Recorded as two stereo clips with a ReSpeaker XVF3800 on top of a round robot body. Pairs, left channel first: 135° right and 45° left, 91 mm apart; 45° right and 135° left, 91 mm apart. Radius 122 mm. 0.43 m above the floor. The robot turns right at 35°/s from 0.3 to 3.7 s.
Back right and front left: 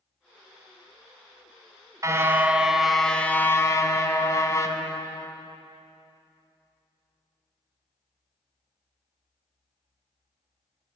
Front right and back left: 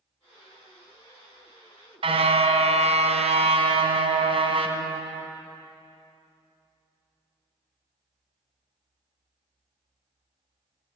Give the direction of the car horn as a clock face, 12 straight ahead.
9 o'clock.